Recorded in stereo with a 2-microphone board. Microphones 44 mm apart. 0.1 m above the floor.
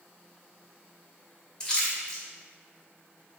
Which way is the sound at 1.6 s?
15° left (ahead or behind).